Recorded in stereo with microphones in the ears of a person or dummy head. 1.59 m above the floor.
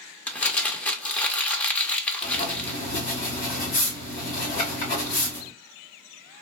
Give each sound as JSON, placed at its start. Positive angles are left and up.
{"t": 0.3, "sound": "crumpling", "side_deg": 15, "distance_m": 0.8}
{"t": 2.2, "sound": "writing", "side_deg": 40, "distance_m": 2.0}